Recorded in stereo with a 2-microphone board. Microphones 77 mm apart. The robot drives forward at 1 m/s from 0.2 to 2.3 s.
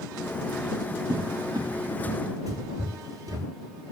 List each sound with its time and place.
1.1 s a cupboard door: 70° right (ahead or behind), 2.5 m; by 3.5 s 45° right (ahead or behind), 3 m